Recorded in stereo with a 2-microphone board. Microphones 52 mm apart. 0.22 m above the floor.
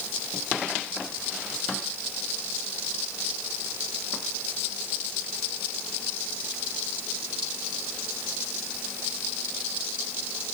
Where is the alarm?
No alarm in this recording.